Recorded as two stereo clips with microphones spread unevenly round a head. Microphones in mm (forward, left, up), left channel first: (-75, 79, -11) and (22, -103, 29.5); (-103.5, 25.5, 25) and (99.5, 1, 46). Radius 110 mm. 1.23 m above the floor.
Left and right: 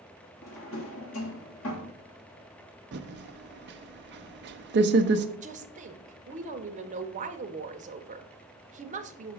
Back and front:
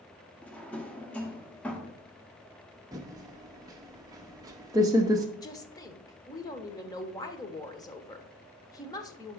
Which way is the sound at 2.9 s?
75° right.